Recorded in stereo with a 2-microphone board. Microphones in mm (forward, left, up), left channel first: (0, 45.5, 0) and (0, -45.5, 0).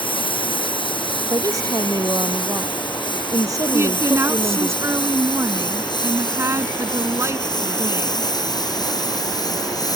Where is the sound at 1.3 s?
45° right (ahead or behind).